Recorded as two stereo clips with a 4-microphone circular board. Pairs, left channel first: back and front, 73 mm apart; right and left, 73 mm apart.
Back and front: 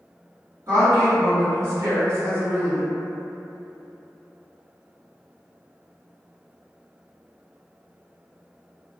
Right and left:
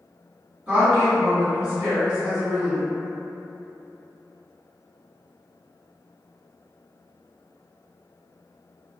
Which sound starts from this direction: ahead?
A woman speaking, at 0.7 s.